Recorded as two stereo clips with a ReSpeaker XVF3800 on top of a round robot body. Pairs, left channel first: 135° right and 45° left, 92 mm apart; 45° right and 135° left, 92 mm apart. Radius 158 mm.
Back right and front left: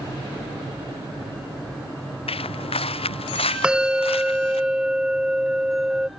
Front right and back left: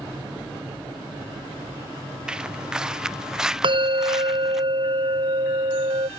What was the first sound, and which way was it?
Footsteps, 145° right.